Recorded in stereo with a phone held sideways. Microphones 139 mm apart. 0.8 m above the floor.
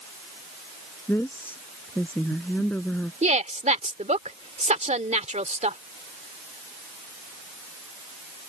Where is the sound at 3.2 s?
60° right (ahead or behind).